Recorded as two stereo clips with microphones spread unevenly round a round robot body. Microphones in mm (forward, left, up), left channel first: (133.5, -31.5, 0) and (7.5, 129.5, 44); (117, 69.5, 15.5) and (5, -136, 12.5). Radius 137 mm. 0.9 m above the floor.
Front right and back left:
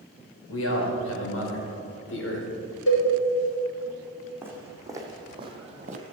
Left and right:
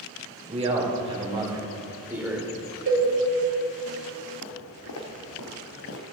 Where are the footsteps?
50° left, 3 m; by 6.0 s 95° left, 1.6 m.